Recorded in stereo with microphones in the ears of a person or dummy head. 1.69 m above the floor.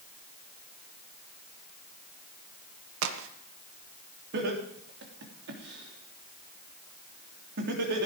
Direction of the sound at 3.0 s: 75° right (ahead or behind).